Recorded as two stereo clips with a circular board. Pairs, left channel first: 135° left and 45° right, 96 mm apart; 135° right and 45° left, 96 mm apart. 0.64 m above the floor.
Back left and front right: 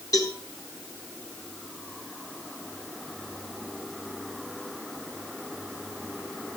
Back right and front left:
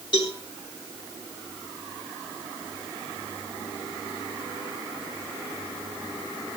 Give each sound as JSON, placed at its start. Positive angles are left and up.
{"t": 0.1, "sound": "a cowbell", "azimuth_deg": -170, "distance_m": 8.0}